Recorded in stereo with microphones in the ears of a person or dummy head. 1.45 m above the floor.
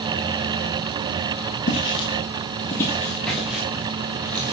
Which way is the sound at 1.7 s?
40° left (ahead or behind).